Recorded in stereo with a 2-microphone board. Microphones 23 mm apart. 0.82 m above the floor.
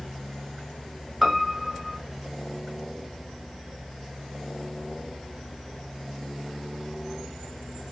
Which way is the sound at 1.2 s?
5° right (ahead or behind).